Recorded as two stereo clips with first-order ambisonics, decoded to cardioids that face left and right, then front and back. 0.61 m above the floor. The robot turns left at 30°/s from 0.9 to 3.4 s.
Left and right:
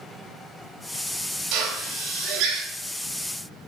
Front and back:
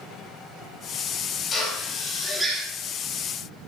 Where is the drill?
65° right, 5 m; by 2.6 s 100° right, 5 m.